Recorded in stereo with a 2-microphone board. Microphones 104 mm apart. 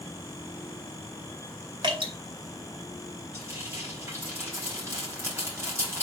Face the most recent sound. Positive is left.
turn(degrees=-25)  # may be behind; listen again after turning